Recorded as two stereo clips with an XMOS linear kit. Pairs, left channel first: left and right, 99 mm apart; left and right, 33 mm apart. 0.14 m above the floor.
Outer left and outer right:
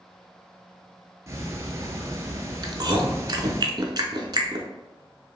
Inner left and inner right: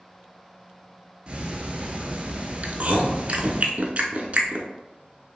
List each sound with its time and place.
1.3 s ticking: 30° right (ahead or behind), 0.6 m
2.6 s chewing: 45° right (ahead or behind), 0.6 m